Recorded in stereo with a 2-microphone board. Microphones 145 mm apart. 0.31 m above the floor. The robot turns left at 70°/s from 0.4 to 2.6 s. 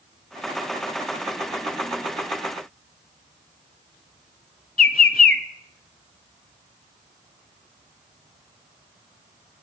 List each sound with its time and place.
4.8 s a bird: 80° left, 0.5 m